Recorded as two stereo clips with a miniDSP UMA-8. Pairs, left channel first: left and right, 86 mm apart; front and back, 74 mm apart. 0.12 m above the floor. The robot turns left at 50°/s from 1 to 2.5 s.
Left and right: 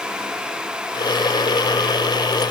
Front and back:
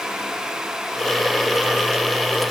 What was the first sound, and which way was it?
Only background noise.